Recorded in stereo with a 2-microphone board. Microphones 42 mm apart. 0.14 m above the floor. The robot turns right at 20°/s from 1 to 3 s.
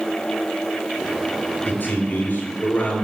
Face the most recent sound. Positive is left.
turn(degrees=45)  # may be behind; listen again after turning